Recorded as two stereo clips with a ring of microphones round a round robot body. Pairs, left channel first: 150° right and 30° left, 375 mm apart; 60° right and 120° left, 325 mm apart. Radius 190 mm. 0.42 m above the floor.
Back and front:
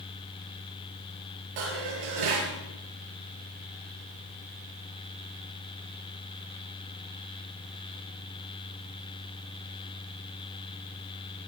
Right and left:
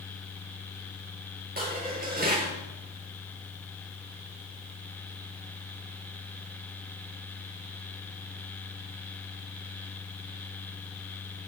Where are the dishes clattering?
55° left, 6.5 m.